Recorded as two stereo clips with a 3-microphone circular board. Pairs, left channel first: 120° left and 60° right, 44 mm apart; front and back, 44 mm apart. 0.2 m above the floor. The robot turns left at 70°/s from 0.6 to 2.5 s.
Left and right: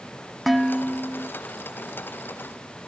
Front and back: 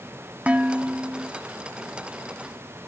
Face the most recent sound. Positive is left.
turn(degrees=75)